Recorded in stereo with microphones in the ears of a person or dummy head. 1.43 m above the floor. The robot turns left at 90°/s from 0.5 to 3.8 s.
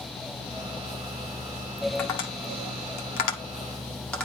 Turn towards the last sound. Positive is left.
turn(degrees=10)  # may be behind; listen again after turning